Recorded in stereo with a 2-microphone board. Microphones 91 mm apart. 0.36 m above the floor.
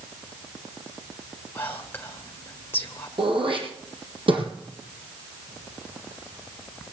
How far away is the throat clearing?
About 3 m.